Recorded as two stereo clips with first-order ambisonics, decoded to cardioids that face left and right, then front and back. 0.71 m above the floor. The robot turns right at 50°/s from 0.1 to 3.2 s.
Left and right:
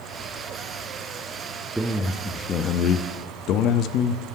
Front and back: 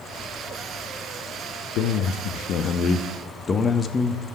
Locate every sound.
1.8 s a man speaking: 5° right, 0.7 m; by 4.2 s 65° left, 0.7 m